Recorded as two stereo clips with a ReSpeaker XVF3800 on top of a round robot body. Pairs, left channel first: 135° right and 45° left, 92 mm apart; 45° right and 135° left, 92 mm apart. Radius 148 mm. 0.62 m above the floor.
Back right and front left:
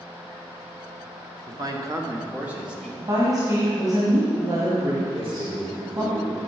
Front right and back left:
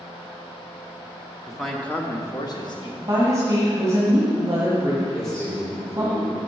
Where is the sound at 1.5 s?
55° left, 1.4 m; by 2.9 s 40° right, 1.8 m.